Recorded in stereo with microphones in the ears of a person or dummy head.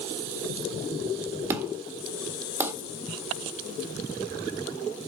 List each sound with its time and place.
1.5 s an explosion: 15° right (ahead or behind), 1.8 m